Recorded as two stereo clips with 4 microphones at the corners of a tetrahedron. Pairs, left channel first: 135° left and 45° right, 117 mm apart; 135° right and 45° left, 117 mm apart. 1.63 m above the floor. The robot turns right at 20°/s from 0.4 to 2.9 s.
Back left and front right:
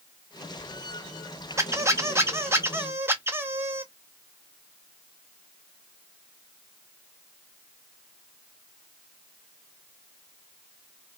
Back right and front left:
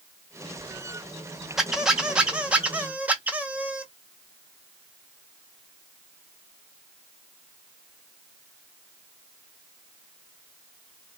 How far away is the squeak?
About 0.6 m.